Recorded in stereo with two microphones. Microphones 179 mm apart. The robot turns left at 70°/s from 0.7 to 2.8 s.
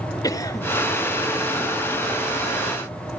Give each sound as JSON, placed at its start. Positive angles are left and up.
{"t": 0.2, "sound": "a cough", "side_deg": 20, "distance_m": 1.1}